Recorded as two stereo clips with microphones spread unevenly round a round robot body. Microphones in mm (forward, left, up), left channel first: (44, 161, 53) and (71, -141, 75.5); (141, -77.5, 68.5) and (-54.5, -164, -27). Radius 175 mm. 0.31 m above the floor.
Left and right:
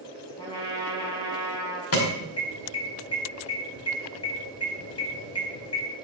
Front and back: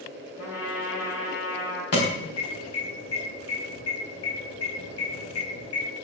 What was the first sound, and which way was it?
A trumpet, 20° left.